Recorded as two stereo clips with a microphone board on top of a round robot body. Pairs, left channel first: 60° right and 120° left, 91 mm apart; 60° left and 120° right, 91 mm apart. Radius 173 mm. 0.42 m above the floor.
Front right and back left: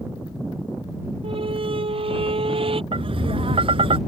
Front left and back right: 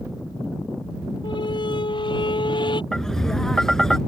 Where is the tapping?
145° left.